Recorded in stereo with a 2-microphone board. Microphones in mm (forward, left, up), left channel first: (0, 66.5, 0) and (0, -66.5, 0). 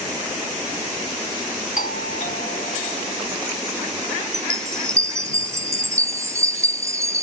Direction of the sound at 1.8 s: 65° left (ahead or behind).